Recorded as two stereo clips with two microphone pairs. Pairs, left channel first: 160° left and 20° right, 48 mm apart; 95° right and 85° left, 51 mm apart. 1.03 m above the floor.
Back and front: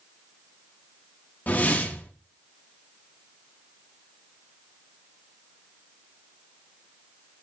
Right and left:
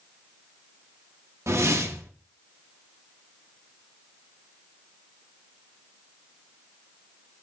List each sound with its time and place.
1.5 s a whoosh: 105° left, 0.9 m